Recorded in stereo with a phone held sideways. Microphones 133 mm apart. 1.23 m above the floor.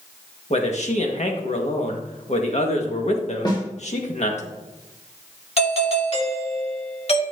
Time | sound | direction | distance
0.5 | a man speaking | 60° left (ahead or behind) | 1.7 m
3.5 | a snare drum | 35° left (ahead or behind) | 2 m
5.6 | a doorbell | 55° left (ahead or behind) | 2 m